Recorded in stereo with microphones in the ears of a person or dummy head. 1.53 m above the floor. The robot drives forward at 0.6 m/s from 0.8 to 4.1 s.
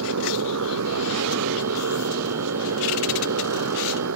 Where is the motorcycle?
85° right; by 4.2 s 80° right.